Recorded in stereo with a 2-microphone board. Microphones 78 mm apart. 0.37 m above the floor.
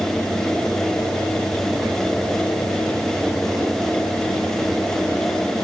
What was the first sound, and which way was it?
Only background noise.